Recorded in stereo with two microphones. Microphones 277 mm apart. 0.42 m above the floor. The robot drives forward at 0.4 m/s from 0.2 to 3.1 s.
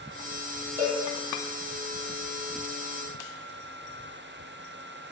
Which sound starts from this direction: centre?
A cowbell, at 0.8 s.